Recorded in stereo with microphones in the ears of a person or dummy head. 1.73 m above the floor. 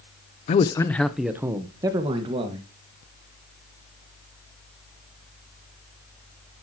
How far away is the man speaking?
About 0.7 m.